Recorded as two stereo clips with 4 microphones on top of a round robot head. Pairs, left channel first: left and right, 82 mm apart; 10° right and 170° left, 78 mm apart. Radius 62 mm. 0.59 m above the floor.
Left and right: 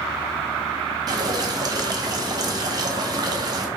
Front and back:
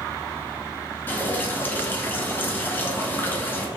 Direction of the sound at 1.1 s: 70° right.